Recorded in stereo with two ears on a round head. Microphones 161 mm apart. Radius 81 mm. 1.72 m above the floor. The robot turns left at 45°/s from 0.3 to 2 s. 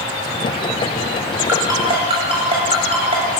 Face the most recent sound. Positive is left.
turn(degrees=-35)  # may be behind; listen again after turning